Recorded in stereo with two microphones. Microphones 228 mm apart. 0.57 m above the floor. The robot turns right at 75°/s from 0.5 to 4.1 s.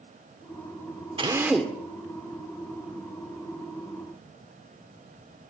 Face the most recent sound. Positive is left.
turn(degrees=-170)